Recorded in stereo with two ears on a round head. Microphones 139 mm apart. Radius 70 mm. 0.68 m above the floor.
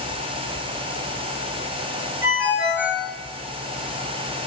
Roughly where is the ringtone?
Centre.